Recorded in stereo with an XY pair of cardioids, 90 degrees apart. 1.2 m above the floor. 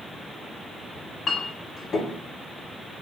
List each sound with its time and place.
0.9 s a clink: 55° left, 1.6 m